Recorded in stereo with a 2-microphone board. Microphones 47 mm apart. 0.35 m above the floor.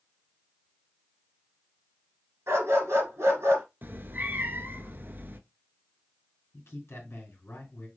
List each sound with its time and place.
2.5 s a dog barking: 70° right (ahead or behind), 1.8 m
3.8 s a cat meowing: 45° right (ahead or behind), 0.5 m
6.5 s a man speaking: 60° left (ahead or behind), 3 m